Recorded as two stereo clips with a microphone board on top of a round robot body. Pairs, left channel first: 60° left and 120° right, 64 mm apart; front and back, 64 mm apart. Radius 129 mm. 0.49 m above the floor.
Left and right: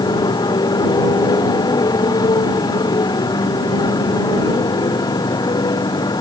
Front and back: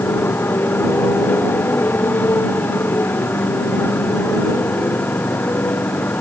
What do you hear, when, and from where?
0.0 s a motorcycle: 60° left; by 6.2 s 65° left